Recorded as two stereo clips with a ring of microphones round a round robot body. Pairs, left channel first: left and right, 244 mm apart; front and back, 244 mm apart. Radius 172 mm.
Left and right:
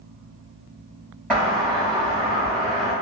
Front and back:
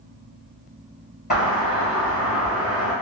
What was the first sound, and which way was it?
A doorbell, 5° right.